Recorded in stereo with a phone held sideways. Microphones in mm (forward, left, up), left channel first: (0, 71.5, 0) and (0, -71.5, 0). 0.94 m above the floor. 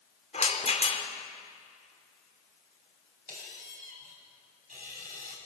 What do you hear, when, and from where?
0.3 s a rattle: 55° left (ahead or behind), 1.9 m
3.3 s a squeak: 80° right, 4 m